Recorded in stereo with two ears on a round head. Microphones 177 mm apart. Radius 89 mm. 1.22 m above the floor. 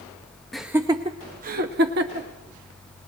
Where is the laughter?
Centre (ahead or behind), 0.6 m; by 2.3 s 60° right (ahead or behind), 1.2 m.